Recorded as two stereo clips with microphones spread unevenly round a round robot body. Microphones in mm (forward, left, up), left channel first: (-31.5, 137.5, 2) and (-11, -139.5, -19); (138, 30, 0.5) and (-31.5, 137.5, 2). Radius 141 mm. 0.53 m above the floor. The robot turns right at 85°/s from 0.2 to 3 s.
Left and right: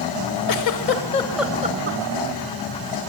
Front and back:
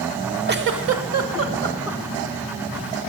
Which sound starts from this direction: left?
A giggle, at 0.5 s.